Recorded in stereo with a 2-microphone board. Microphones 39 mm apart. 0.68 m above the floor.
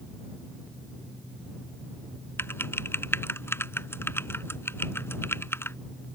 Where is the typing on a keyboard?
85° left.